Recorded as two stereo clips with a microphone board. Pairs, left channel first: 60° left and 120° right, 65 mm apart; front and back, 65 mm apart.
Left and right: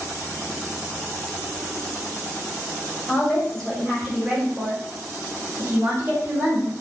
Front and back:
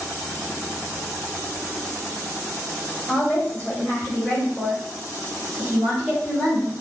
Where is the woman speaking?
30° left, 1.3 m; by 6.7 s 90° right, 1.9 m.